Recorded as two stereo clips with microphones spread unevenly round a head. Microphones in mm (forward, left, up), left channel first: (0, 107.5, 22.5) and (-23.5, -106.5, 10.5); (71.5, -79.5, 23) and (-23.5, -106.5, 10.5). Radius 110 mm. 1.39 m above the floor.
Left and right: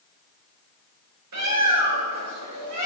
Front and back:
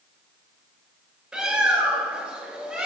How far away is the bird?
About 7.5 m.